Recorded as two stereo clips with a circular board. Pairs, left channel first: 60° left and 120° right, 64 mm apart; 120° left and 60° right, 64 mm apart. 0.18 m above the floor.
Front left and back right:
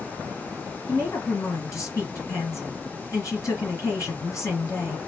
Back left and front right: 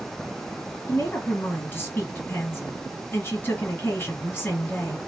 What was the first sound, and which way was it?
A woman speaking, 75° left.